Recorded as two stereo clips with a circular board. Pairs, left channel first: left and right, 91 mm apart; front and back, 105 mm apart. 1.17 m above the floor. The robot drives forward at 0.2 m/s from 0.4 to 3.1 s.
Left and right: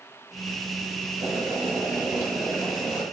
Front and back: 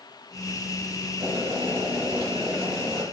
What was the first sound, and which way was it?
Boiling, 145° right.